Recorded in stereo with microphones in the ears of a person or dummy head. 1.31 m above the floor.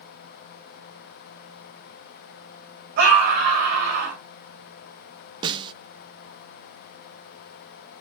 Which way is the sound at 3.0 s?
55° right (ahead or behind).